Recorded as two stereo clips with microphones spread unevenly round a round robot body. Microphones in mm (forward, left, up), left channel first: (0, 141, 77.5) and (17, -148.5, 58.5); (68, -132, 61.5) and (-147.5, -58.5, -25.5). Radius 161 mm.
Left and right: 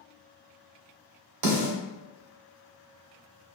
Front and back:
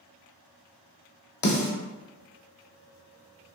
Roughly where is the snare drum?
Ahead right.